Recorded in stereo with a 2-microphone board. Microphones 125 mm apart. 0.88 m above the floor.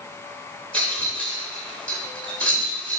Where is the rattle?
10° left (ahead or behind), 3 m.